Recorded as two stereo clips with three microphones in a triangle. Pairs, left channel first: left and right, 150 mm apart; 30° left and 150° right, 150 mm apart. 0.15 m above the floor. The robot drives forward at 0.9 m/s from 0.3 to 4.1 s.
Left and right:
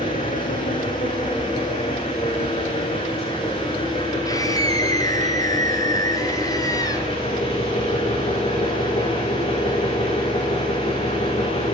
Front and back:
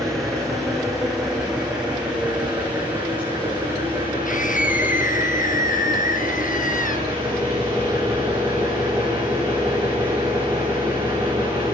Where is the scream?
25° left, 2.5 m.